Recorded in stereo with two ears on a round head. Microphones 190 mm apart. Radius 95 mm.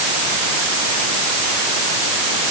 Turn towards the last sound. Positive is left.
No sound to turn to.